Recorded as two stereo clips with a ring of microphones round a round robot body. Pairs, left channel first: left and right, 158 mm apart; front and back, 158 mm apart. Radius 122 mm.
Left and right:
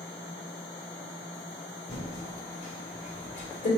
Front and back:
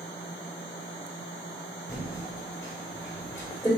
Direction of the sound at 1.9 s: 65° left.